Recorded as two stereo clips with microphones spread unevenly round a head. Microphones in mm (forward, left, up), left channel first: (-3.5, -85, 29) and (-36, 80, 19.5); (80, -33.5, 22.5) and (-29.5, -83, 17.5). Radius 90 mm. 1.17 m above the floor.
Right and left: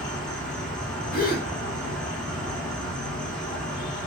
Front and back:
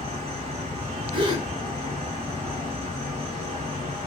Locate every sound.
0.0 s an insect: 165° right, 1.1 m
1.1 s a gasp: 115° right, 1.1 m